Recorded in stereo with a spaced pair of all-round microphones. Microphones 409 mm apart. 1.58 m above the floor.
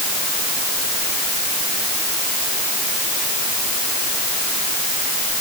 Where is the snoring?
I don't hear snoring.